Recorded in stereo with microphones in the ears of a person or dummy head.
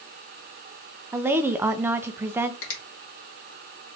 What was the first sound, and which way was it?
A woman speaking, 15° right (ahead or behind).